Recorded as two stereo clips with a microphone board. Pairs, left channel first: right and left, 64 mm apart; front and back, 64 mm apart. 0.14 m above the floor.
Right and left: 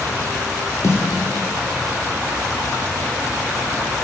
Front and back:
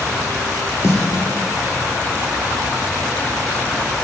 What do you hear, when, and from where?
0.8 s a snare drum: 45° right, 1.2 m